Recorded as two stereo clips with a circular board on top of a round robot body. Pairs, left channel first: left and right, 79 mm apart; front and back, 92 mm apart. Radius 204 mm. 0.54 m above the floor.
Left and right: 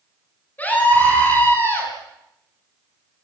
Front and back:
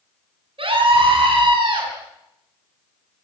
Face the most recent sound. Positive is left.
turn(degrees=150)